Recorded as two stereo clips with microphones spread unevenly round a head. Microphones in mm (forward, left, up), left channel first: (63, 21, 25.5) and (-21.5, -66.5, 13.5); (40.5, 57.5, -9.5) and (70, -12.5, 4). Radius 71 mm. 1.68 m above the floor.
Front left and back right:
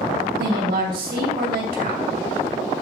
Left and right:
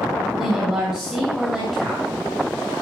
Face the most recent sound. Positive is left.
turn(degrees=-155)